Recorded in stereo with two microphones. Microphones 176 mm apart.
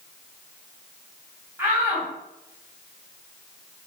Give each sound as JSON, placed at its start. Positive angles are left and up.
{"t": 1.6, "sound": "a shout", "side_deg": -15, "distance_m": 2.5}